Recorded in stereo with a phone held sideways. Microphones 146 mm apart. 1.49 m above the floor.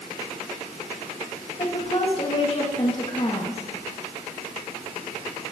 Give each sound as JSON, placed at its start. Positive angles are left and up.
{"t": 1.6, "sound": "a woman speaking", "side_deg": 45, "distance_m": 2.5}